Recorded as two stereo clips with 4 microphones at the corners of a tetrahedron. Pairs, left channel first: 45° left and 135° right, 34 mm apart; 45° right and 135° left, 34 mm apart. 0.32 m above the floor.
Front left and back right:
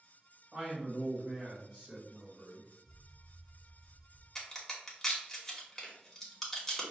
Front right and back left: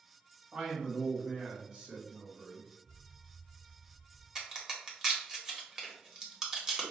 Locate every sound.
0.5 s a man speaking: 170° right, 1.8 m
2.9 s an explosion: 125° left, 0.6 m
4.3 s a crack: 105° left, 1.1 m